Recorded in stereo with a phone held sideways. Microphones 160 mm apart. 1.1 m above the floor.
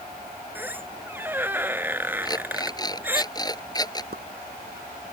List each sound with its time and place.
0.6 s a squeak: 10° right (ahead or behind)
2.2 s an alarm clock: 25° left (ahead or behind)
4.1 s a pop: 80° right